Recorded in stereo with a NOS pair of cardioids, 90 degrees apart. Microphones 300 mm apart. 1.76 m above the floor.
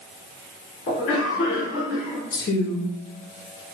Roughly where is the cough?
Ahead left.